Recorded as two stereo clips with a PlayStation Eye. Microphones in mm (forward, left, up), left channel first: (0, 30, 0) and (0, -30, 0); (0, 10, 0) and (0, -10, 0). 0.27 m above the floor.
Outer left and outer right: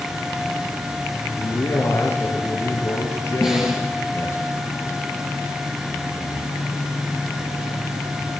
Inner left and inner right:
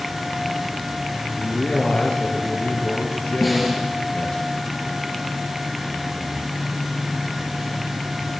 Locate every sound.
1.4 s a man speaking: 50° left (ahead or behind), 5.5 m
3.4 s a snare drum: 10° right (ahead or behind), 5 m